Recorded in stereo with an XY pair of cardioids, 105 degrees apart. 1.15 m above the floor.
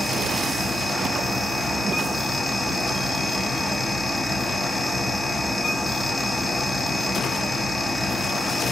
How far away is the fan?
About 2.5 m.